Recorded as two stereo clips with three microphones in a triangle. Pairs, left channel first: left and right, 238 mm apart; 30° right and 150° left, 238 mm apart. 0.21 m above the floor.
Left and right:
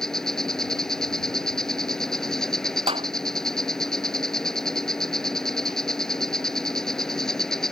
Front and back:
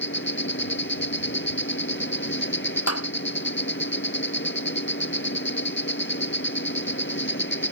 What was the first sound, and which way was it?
An insect, straight ahead.